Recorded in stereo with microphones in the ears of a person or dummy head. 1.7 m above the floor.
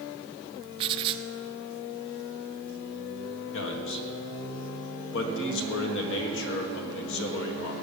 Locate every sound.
0.8 s writing: 25° right (ahead or behind), 0.8 m
3.5 s a man speaking: 65° left (ahead or behind), 1.7 m